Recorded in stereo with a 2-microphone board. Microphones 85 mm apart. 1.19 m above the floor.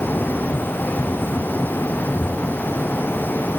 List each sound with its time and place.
Only background noise.